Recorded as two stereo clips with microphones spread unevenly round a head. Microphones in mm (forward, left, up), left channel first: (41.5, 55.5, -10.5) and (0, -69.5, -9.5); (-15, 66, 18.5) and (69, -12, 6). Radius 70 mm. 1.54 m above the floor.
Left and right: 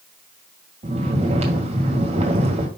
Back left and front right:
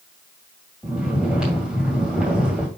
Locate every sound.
0.8 s snoring: 130° right, 1.9 m